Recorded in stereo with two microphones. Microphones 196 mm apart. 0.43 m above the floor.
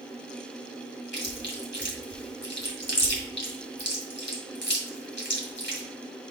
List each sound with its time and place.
1.1 s chewing: 65° left (ahead or behind), 2 m